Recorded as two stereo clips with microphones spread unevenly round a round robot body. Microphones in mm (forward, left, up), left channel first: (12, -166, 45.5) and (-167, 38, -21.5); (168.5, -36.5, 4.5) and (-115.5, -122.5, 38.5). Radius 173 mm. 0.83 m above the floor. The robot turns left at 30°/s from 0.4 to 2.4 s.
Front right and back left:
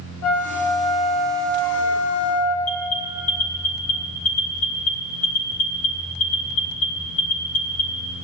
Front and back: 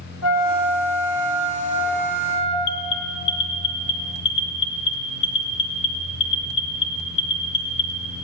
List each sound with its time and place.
0.2 s a flute: straight ahead, 2.5 m; by 2.5 s 60° right, 2.5 m
2.6 s an alarm: 5° left, 1.3 m